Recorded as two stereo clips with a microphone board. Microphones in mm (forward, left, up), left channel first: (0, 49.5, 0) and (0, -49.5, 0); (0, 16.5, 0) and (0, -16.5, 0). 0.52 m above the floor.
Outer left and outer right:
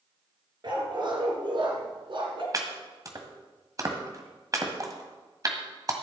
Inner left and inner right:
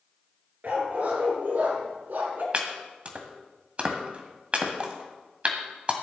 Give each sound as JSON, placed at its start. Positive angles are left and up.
{"t": 0.6, "sound": "a dog barking", "side_deg": -50, "distance_m": 3.0}
{"t": 2.5, "sound": "chopping", "side_deg": -35, "distance_m": 1.6}